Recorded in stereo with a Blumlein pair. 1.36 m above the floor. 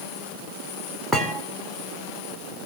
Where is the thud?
Straight ahead, 2.5 m.